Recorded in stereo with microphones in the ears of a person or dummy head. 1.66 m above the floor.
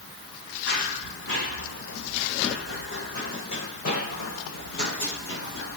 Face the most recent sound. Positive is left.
turn(degrees=70)  # may be behind; listen again after turning